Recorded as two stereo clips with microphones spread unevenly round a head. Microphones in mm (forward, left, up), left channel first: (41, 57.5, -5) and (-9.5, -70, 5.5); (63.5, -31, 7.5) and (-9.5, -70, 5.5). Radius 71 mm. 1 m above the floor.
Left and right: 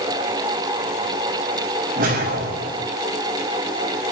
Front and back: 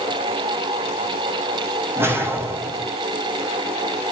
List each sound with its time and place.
1.9 s a whoosh: 90° right, 6 m